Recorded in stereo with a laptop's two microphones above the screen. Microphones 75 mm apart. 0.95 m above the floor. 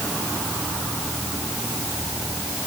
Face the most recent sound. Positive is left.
No sound to turn to.